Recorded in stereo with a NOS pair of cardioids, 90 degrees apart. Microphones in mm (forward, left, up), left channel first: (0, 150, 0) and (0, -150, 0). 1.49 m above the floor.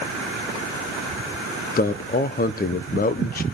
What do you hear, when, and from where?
1.8 s a man speaking: 30° left, 1.0 m